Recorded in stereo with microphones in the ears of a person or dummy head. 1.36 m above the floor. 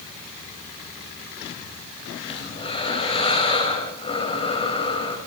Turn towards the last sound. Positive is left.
turn(degrees=30)  # may be behind; listen again after turning